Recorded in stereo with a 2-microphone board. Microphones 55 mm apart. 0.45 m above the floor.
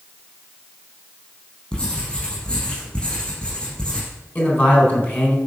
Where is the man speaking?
35° left (ahead or behind), 3.5 m.